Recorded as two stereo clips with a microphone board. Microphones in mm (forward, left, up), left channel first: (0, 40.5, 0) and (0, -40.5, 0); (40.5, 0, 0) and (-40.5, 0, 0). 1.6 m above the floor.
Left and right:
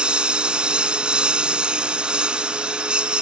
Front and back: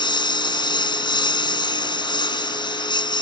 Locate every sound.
0.0 s a lawn mower: 10° right